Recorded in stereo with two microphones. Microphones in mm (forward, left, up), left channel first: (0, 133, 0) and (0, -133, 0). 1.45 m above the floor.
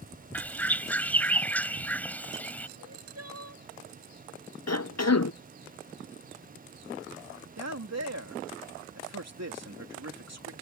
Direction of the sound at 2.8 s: 65° right (ahead or behind).